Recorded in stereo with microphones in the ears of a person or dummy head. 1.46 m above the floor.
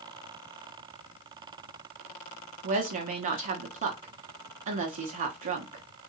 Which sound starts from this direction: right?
A woman speaking, at 2.6 s.